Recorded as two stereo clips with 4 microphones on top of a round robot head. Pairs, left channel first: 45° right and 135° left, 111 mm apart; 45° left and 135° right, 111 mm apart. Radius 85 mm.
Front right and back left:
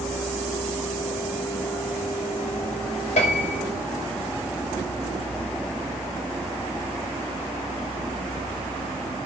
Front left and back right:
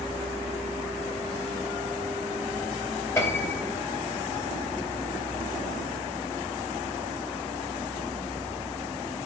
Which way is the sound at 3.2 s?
20° right.